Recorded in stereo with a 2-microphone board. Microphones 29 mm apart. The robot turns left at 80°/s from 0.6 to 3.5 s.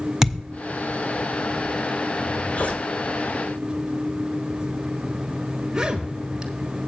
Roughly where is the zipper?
Left.